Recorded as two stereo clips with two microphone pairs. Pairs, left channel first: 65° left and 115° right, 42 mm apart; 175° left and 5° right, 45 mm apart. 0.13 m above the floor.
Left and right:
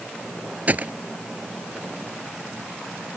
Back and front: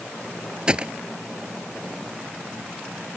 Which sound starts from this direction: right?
A gunshot, at 0.7 s.